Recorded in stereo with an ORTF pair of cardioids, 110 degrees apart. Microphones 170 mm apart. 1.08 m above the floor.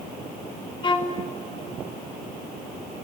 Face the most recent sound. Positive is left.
turn(degrees=30)